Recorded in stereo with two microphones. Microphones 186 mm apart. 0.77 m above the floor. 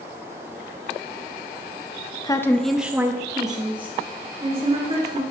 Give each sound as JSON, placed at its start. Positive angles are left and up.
{"t": 2.2, "sound": "a woman speaking", "side_deg": 20, "distance_m": 0.5}